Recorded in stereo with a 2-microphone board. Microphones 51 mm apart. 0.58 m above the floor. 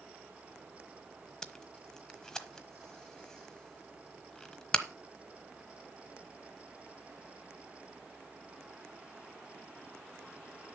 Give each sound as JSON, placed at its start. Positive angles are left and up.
{"t": 1.4, "sound": "tape being pulled", "side_deg": 15, "distance_m": 1.1}